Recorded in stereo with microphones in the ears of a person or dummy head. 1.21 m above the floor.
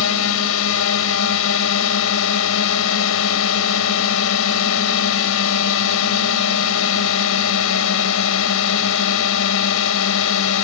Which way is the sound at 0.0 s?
75° left (ahead or behind).